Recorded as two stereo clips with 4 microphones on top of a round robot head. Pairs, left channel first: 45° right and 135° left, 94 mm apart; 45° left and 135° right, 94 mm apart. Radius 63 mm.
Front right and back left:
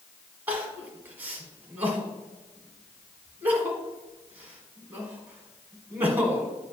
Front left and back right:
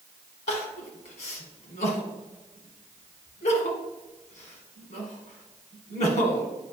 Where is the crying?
60° left, 1.5 m.